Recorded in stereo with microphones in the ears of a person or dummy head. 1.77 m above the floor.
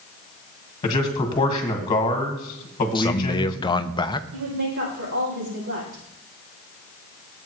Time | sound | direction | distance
0.8 | a man speaking | 30° left (ahead or behind) | 1.5 m
3.0 | a man speaking | 25° left (ahead or behind) | 0.5 m
4.3 | a woman speaking | 75° right (ahead or behind) | 6 m